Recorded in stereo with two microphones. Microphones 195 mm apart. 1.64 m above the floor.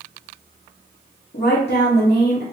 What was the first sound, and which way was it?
A woman speaking, 60° left (ahead or behind).